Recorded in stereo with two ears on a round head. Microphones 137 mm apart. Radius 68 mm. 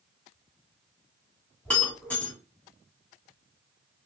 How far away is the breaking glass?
About 2.5 m.